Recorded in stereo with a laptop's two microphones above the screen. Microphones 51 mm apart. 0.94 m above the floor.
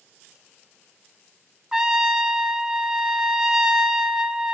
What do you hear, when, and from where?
1.7 s a trumpet: 15° right (ahead or behind), 0.9 m